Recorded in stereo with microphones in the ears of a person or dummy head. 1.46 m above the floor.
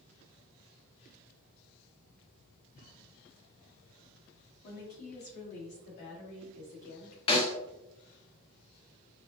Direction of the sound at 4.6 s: 55° left (ahead or behind).